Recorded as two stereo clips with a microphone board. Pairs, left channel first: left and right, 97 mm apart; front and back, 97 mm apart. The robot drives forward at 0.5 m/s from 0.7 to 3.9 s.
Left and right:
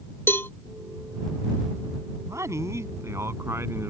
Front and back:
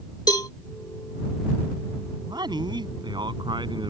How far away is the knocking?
No knocking in this recording.